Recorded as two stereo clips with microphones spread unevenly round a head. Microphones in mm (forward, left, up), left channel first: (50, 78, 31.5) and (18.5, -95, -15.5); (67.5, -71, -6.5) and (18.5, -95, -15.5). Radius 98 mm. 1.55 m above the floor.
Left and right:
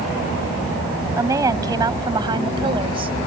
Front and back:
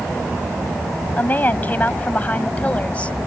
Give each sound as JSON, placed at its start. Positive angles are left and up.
{"t": 1.2, "sound": "a woman speaking", "azimuth_deg": -25}